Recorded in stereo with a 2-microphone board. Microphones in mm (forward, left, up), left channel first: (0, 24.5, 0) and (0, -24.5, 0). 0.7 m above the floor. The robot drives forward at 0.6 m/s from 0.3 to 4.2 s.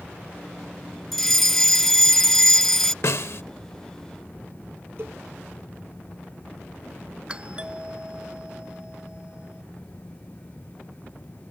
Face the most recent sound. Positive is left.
turn(degrees=-25)  # may be behind; listen again after turning